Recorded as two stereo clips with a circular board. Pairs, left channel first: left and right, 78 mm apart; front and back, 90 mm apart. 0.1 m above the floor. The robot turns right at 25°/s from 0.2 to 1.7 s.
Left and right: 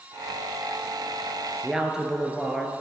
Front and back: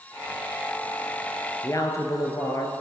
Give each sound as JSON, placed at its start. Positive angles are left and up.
{"t": 1.6, "sound": "a woman speaking", "azimuth_deg": -15, "distance_m": 1.4}